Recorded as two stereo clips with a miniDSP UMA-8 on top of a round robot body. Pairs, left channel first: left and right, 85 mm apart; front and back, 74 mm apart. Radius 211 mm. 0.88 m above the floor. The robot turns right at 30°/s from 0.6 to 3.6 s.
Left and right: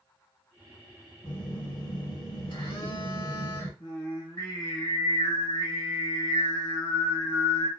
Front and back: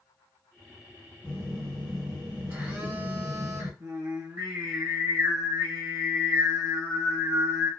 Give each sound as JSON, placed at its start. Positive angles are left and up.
{"t": 1.2, "sound": "a phone buzzing", "azimuth_deg": 70, "distance_m": 2.5}
{"t": 3.8, "sound": "singing", "azimuth_deg": 130, "distance_m": 1.4}